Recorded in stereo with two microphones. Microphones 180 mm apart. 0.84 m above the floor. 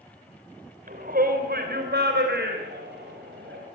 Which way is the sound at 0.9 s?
50° right (ahead or behind).